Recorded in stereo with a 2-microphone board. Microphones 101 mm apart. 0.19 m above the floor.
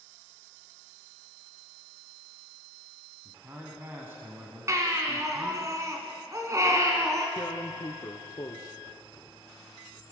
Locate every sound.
3.2 s a man speaking: 25° right (ahead or behind), 1.5 m
4.7 s a baby crying: 30° right (ahead or behind), 1.6 m
7.4 s tearing paper: 40° left (ahead or behind), 0.7 m